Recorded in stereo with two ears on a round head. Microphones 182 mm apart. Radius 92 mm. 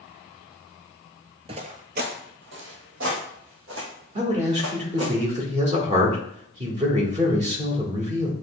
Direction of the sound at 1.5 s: 30° right (ahead or behind).